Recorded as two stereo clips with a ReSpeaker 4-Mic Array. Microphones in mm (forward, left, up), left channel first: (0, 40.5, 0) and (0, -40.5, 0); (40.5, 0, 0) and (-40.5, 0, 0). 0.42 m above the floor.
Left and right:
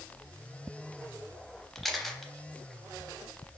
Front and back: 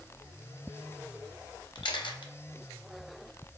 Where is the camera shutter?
Straight ahead, 0.6 m.